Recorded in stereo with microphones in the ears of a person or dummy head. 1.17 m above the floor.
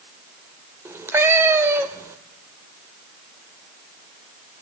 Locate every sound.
0.8 s a cat meowing: 15° right (ahead or behind), 1.1 m